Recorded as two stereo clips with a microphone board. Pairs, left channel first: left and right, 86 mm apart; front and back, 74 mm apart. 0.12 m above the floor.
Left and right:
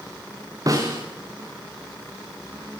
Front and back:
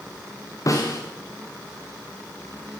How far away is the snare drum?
About 8 m.